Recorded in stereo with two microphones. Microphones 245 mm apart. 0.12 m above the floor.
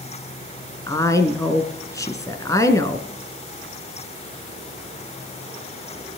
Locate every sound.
0.9 s a woman speaking: 15° left (ahead or behind), 1.2 m